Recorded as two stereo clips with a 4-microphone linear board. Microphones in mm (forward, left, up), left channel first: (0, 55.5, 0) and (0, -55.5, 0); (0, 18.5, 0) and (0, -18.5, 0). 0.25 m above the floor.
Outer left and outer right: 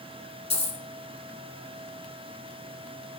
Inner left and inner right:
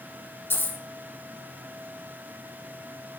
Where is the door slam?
No door slam in this recording.